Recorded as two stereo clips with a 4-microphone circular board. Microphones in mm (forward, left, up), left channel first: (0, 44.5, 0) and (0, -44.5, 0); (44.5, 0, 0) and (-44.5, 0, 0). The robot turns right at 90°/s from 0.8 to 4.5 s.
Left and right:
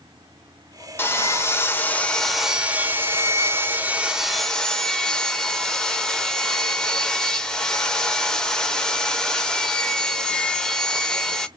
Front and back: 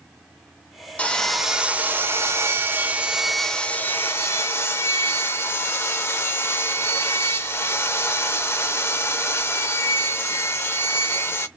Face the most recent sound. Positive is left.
turn(degrees=15)